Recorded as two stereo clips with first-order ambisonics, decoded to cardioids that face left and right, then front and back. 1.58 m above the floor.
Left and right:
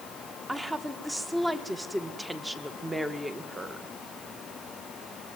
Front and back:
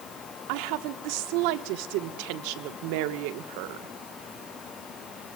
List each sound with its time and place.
0.5 s a woman speaking: 175° right, 1.7 m